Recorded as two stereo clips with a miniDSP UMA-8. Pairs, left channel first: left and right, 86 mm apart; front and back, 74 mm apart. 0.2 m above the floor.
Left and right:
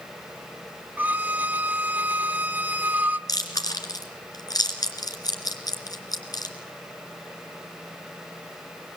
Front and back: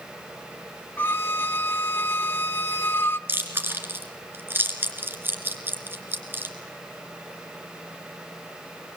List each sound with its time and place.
1.0 s a violin: 35° right, 0.8 m
3.3 s chewing: 125° left, 2.5 m